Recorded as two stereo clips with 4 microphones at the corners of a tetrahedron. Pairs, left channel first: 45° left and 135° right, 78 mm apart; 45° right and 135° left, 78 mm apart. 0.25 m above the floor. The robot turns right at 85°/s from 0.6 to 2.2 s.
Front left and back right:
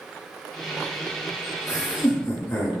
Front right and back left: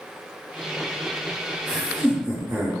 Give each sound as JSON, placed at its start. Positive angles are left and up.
{"t": 1.7, "sound": "laughter", "azimuth_deg": 40, "distance_m": 1.8}